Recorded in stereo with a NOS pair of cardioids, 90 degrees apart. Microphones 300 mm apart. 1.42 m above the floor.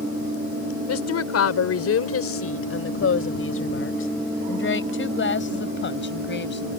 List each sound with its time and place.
0.9 s a woman speaking: 55° left; by 6.7 s 35° left